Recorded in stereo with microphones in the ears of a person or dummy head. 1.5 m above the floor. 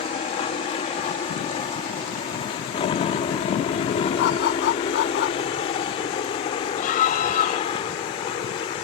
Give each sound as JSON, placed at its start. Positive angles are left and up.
{"t": 0.0, "sound": "a helicopter", "side_deg": 30}
{"t": 4.2, "sound": "a dog barking", "side_deg": 65}
{"t": 6.8, "sound": "a scream", "side_deg": 45}